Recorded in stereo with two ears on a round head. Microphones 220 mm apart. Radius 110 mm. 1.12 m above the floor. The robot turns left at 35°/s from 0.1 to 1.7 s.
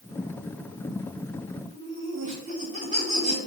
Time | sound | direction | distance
1.7 | laughter | 35° right (ahead or behind) | 3.5 m